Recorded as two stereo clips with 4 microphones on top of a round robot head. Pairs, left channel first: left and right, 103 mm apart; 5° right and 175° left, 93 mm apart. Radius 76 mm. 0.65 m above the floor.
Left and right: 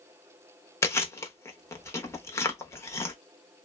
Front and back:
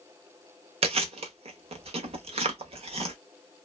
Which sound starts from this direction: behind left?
Chewing, at 0.8 s.